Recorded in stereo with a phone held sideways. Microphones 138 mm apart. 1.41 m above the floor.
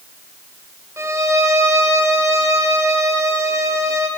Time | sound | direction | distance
1.0 | a violin | 20° right (ahead or behind) | 2.5 m